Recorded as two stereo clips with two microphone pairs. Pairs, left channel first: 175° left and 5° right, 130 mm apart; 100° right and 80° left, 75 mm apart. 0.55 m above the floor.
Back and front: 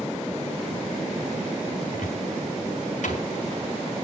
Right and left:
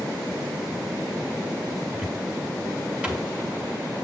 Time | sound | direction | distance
1.9 | a cupboard door | 160° left | 4 m